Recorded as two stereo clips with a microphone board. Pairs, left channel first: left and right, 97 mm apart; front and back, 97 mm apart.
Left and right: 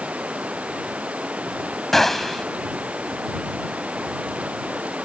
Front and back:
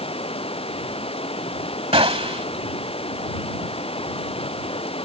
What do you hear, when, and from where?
0.0 s running water: 15° right
1.9 s a gunshot: 175° left